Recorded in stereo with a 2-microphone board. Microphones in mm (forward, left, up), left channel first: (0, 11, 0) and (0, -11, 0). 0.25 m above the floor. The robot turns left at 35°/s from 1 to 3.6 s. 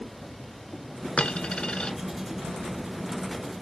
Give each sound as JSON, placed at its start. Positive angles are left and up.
{"t": 1.2, "sound": "a dropped coin", "side_deg": 70, "distance_m": 0.7}